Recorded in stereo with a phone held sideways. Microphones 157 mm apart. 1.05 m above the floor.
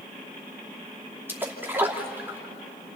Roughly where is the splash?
Centre.